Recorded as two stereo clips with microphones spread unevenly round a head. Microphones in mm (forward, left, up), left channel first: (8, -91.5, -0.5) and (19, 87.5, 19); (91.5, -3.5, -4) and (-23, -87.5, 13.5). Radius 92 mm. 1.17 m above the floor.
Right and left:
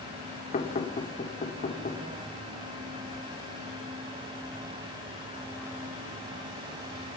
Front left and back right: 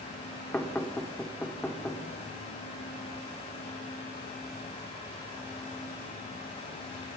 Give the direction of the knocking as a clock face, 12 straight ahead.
1 o'clock.